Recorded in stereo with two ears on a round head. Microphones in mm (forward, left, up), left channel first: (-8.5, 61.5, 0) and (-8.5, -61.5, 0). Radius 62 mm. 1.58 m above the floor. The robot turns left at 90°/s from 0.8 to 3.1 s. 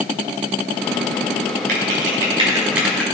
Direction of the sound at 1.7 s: 65° right (ahead or behind).